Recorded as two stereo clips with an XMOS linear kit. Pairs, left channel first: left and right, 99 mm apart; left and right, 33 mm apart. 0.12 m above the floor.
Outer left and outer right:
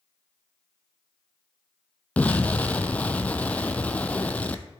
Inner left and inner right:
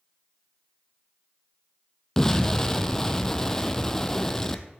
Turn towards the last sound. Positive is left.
turn(degrees=15)  # may be behind; listen again after turning